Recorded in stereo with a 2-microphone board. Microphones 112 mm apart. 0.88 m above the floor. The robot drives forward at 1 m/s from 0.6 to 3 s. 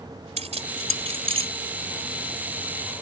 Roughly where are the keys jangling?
Right.